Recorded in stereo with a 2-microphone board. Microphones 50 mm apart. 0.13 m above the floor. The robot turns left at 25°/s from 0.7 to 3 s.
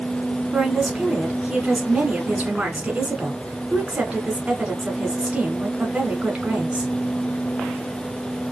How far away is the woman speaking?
About 1.3 m.